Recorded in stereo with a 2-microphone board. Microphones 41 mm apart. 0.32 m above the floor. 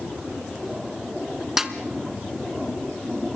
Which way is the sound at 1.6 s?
10° right (ahead or behind).